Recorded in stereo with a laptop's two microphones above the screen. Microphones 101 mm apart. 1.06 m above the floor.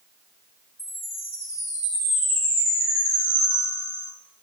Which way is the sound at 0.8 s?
25° left (ahead or behind).